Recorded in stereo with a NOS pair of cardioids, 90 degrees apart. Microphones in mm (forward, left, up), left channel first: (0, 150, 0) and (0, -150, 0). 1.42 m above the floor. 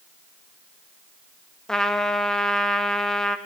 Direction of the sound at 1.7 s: Straight ahead.